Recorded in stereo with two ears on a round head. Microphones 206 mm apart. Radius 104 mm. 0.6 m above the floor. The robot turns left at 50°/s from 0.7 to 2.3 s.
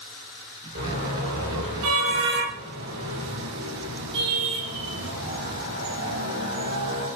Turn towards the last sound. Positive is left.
turn(degrees=-55)  # may be behind; listen again after turning